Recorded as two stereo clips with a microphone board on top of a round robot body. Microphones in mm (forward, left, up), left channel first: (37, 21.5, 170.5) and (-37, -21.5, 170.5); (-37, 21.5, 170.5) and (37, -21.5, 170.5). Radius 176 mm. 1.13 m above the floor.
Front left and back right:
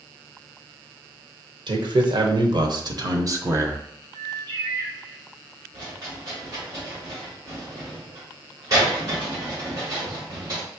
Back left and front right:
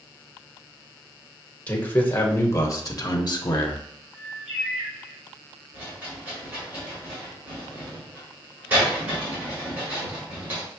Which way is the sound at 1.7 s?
140° right.